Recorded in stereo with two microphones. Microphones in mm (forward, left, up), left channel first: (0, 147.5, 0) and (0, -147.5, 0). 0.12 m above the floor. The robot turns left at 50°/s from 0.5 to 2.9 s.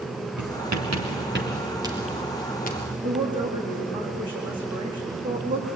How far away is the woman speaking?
About 7.5 m.